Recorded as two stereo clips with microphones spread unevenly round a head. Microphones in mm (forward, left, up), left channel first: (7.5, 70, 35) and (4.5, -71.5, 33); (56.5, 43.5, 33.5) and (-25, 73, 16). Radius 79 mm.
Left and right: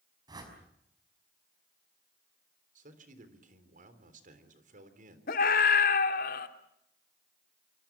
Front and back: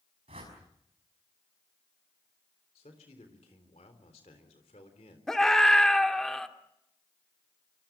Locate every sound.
0.3 s a whoosh: 155° right, 5.5 m
2.8 s a man speaking: 60° right, 3.5 m
5.3 s a scream: 65° left, 2.5 m